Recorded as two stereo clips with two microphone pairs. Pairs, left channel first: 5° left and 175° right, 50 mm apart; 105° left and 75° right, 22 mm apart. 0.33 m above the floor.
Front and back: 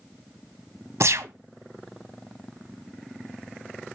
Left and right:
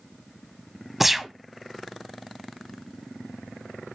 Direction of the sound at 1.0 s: 155° right.